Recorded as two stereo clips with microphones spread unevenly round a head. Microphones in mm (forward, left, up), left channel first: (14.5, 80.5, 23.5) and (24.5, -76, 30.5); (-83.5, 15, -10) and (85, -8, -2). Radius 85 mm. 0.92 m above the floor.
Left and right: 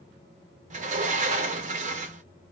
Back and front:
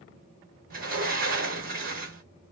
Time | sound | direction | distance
0.7 | a sliding door | 45° right | 1.2 m